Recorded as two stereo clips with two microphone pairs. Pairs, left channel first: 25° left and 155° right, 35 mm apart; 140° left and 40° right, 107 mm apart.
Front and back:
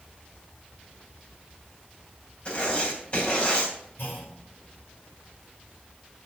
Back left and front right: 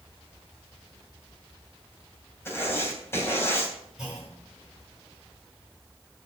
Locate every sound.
2.5 s writing: 75° left, 3 m
4.0 s a clunk: 45° left, 6 m